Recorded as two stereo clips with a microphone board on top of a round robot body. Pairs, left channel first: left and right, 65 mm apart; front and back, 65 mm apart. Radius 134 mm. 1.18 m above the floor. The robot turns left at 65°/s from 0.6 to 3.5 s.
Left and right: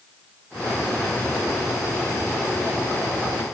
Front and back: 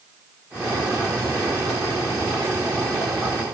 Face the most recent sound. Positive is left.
No sound to turn to.